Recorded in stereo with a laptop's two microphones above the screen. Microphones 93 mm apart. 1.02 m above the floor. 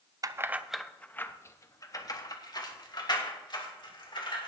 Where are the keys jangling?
40° right (ahead or behind), 0.5 m; by 4.5 s 55° left (ahead or behind), 2.5 m.